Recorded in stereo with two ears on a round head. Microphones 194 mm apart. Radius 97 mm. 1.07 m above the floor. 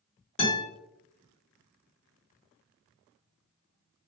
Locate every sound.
0.4 s a guitar: 30° left (ahead or behind), 1.5 m